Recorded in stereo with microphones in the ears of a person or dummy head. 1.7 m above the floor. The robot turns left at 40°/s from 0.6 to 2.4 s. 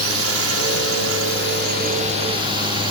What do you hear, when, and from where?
0.0 s a drone: 85° right; by 2.9 s 155° right